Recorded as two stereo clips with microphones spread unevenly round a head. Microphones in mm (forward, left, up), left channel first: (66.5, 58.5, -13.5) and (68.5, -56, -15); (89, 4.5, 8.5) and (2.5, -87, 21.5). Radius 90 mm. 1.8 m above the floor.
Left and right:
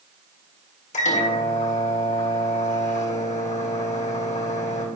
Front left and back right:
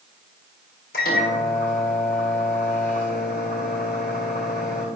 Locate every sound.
0.9 s a microwave: 90° left, 1.7 m